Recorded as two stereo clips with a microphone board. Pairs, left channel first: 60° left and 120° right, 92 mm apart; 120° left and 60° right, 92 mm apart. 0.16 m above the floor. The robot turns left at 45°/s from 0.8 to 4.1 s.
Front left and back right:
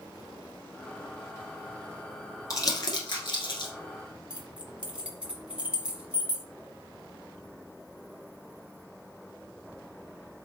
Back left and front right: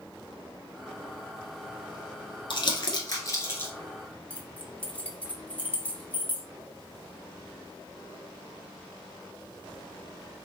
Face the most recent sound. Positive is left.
turn(degrees=175)